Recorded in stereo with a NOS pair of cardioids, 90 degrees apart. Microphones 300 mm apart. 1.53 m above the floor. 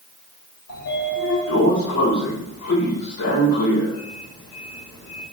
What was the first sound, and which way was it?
A sliding door, 60° left.